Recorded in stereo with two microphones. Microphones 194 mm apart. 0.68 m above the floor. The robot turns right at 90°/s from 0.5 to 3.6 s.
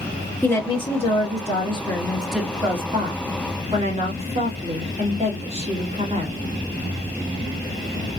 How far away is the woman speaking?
About 1.2 m.